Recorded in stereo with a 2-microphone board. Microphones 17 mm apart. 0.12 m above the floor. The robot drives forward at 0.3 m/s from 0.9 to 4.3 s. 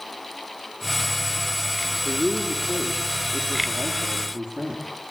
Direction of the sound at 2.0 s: 60° right (ahead or behind).